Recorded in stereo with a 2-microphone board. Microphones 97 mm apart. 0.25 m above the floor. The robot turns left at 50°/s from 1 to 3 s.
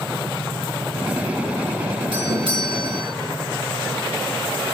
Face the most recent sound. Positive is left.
turn(degrees=-115)